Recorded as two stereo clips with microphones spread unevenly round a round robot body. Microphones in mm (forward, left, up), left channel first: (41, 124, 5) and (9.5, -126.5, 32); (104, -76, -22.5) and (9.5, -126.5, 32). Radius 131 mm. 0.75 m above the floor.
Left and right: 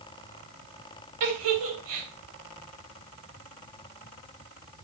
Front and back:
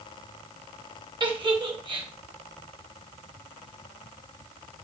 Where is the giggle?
105° right, 3.5 m.